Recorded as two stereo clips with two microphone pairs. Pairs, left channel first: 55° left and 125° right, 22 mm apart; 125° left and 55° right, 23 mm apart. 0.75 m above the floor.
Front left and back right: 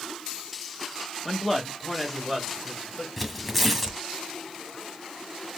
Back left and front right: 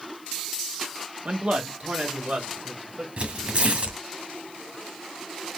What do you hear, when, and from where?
1.2 s a man speaking: 40° right, 1.1 m; by 3.1 s 35° right, 2.5 m
3.2 s tearing paper: 30° right, 1.2 m